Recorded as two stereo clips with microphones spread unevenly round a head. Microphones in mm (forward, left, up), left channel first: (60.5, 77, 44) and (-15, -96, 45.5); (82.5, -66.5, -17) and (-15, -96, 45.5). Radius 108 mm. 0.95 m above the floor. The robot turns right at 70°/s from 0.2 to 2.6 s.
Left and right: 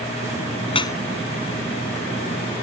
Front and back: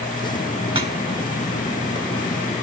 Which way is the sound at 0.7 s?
125° left.